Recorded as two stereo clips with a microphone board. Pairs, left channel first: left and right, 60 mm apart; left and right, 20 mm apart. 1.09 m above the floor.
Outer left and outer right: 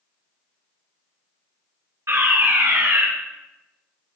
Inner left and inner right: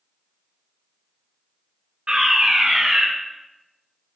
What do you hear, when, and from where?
2.1 s a fire alarm: 55° right (ahead or behind), 2 m